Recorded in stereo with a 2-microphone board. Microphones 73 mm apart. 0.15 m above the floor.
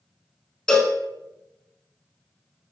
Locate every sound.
0.7 s a cowbell: 10° left (ahead or behind), 0.5 m